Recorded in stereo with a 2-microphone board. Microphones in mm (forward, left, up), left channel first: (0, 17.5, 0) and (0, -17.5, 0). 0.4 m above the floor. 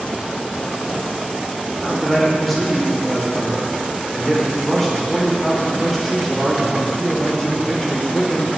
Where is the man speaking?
5° left (ahead or behind), 1.0 m.